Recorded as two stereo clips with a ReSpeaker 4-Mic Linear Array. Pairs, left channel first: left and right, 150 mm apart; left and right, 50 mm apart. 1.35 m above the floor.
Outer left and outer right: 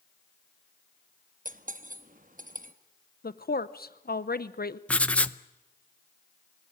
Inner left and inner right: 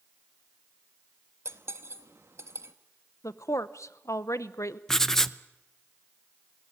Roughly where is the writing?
Centre.